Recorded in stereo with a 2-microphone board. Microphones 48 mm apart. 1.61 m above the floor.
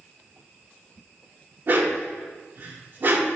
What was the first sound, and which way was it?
A dog barking, 45° right (ahead or behind).